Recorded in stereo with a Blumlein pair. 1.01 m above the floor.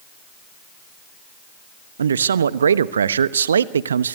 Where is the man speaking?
70° right, 0.8 m.